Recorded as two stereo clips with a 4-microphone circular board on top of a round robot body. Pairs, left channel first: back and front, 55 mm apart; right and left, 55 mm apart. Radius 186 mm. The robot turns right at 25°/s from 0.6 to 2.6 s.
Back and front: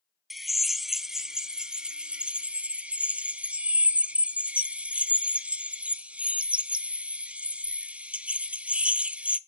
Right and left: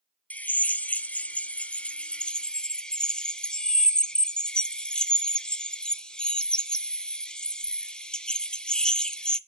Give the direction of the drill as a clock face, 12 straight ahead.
3 o'clock.